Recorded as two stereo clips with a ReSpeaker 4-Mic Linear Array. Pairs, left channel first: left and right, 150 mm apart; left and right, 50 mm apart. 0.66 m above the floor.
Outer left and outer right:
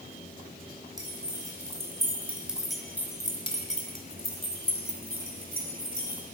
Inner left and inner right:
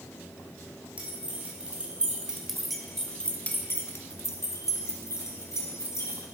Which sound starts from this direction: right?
Keys jangling, at 1.0 s.